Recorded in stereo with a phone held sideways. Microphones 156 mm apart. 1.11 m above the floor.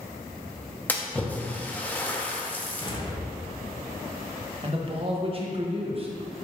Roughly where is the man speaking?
Right.